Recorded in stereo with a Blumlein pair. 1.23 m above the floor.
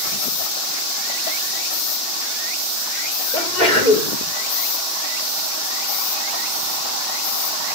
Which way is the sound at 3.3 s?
5° right.